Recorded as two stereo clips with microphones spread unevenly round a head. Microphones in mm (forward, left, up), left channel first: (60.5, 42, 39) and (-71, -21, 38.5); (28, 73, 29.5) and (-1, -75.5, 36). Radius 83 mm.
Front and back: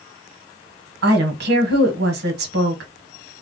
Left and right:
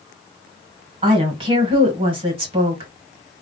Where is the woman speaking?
160° right, 1.2 m.